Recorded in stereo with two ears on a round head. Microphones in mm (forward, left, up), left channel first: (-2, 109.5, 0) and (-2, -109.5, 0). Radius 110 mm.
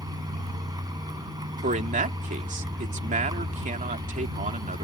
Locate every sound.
0.0 s a vehicle: 15° right (ahead or behind)
1.6 s a man speaking: 30° right (ahead or behind)